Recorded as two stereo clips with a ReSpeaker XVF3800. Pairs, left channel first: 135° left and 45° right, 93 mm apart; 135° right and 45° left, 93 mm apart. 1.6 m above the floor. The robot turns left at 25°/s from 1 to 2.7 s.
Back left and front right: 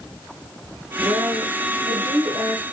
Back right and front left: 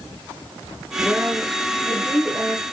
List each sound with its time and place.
1.0 s a woman speaking: 35° right, 1.3 m; by 2.6 s 75° right, 1.3 m